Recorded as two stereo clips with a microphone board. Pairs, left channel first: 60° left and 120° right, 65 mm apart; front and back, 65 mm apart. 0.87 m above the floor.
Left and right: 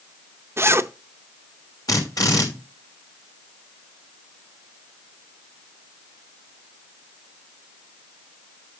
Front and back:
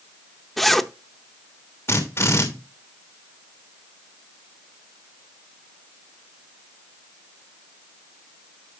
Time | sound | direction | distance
0.6 | a zipper | 90° right | 0.6 m
1.9 | a drill | 45° left | 2.5 m